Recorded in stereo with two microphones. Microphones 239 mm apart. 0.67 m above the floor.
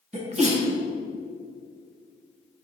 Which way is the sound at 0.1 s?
30° right (ahead or behind).